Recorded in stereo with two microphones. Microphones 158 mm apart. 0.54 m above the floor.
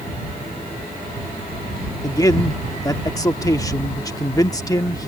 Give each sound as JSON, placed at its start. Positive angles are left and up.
{"t": 2.0, "sound": "a man speaking", "side_deg": 20}